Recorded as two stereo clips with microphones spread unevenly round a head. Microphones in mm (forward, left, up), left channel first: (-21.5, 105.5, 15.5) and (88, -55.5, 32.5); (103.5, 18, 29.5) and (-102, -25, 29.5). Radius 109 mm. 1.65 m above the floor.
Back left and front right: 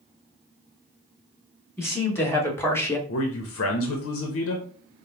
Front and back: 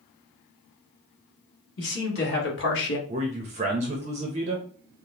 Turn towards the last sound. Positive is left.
turn(degrees=130)